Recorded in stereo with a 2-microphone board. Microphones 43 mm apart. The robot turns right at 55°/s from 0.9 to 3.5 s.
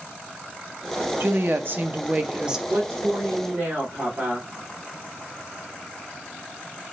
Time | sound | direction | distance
1.2 | a woman speaking | 95° right | 0.9 m
2.7 | a woman speaking | 95° right | 2.5 m